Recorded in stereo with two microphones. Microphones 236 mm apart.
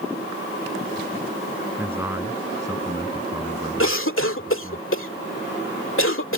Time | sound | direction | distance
1.8 | a man speaking | 10° right (ahead or behind) | ?
3.8 | a cough | 60° left (ahead or behind) | ?